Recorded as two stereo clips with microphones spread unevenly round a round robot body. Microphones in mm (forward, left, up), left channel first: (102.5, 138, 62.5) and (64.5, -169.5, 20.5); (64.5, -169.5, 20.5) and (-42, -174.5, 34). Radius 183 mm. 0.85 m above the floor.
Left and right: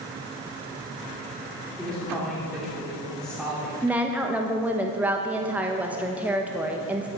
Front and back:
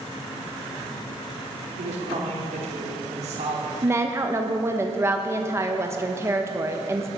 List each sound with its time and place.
1.8 s a woman speaking: 175° left, 2.5 m
3.8 s a woman speaking: 145° right, 0.9 m